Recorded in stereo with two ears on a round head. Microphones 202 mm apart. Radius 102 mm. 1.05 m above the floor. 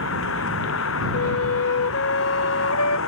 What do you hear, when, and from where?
0.0 s a vehicle: 60° left (ahead or behind)
1.1 s a flute: 70° left (ahead or behind)